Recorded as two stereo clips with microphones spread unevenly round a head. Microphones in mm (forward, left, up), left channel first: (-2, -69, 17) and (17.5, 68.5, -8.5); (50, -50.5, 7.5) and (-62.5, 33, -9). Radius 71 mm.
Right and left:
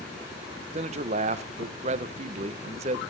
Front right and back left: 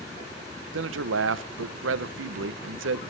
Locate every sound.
0.7 s a man speaking: 135° left, 0.6 m